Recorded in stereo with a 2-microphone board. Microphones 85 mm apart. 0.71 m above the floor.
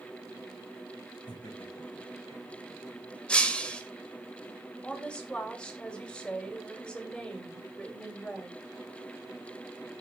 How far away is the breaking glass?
About 1.9 m.